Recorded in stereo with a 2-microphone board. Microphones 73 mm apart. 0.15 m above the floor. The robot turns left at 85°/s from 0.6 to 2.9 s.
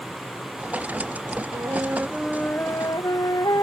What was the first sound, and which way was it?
A flute, 120° right.